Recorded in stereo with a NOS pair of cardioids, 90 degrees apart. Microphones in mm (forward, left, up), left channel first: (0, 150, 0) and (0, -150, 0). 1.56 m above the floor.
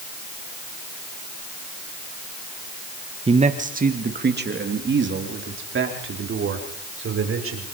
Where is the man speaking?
20° right, 1.7 m; by 7.7 s 45° right, 6.5 m.